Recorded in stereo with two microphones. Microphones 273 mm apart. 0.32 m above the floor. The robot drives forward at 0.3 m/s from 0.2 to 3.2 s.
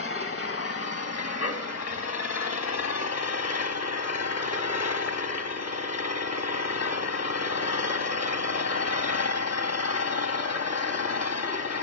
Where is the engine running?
55° left (ahead or behind), 1.2 m; by 11.8 s 65° left (ahead or behind), 1.0 m.